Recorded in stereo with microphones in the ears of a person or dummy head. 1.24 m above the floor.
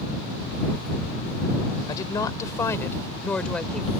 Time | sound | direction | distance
1.9 | a woman speaking | 20° left (ahead or behind) | ?